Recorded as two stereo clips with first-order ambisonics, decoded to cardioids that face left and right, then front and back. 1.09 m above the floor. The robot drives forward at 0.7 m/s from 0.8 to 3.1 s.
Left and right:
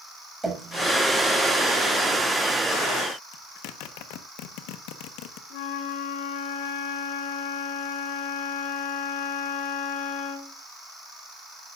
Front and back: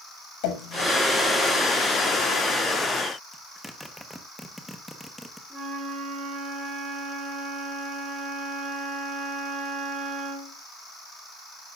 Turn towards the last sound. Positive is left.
turn(degrees=105)